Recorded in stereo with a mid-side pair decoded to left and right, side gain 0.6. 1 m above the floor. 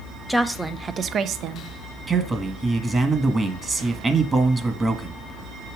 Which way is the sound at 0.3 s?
Straight ahead.